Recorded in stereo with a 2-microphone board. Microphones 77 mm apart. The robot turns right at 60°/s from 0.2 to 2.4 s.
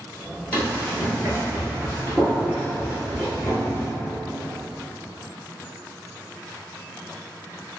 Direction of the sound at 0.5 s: 20° left (ahead or behind).